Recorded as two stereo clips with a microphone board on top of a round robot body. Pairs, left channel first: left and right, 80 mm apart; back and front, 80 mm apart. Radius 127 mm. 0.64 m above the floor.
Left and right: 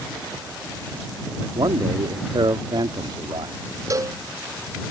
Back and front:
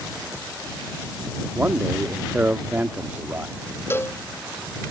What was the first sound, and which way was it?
A man speaking, 65° right.